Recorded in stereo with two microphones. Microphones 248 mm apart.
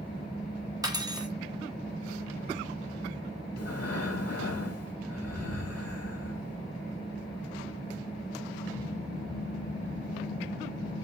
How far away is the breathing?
About 1.5 m.